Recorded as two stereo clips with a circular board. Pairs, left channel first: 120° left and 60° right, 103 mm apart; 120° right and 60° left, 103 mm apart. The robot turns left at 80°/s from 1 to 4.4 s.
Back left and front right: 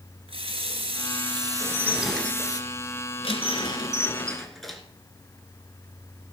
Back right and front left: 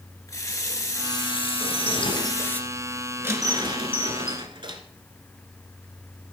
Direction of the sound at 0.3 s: 65° right.